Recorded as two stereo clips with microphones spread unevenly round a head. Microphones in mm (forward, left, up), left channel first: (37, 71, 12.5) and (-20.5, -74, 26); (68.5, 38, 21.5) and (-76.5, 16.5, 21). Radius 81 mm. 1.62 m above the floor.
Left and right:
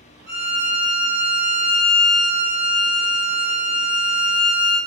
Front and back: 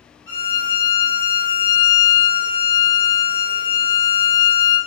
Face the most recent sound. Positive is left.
turn(degrees=-45)